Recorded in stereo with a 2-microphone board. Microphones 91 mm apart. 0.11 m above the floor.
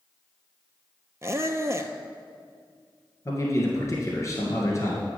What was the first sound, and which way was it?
A squeak, 30° right (ahead or behind).